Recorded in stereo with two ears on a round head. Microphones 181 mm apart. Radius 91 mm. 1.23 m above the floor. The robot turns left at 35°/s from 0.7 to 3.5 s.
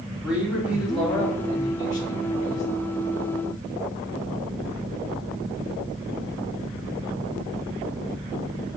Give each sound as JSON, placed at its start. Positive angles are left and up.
{"t": 0.2, "sound": "a man speaking", "azimuth_deg": -175, "distance_m": 2.5}